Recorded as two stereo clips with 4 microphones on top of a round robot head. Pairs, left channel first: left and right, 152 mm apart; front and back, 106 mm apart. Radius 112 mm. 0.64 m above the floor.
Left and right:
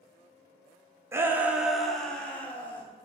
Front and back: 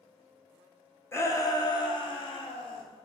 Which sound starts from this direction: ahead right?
A shout, at 1.1 s.